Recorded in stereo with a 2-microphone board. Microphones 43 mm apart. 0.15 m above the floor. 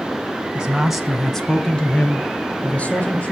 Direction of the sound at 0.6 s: 20° right (ahead or behind).